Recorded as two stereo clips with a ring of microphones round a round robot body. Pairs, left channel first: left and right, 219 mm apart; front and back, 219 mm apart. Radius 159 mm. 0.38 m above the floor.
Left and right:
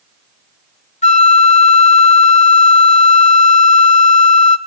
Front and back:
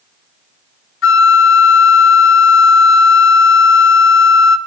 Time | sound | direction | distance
1.0 | a flute | 30° left | 0.9 m